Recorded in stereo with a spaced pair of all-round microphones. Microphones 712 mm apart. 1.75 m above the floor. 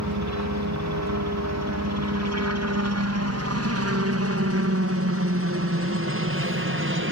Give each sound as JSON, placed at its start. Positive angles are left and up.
{"t": 0.0, "sound": "a helicopter", "side_deg": -25}